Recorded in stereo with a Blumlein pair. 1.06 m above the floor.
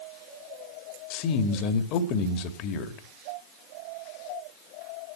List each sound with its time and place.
1.1 s a man speaking: 40° left, 2.0 m